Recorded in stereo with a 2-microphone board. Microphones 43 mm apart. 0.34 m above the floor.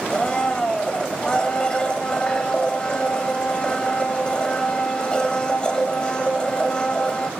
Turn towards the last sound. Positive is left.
turn(degrees=20)  # may be behind; listen again after turning